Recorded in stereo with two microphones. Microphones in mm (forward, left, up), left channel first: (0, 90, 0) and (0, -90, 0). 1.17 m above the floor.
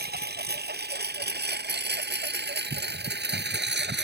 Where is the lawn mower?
60° right (ahead or behind); by 4.0 s 70° right (ahead or behind).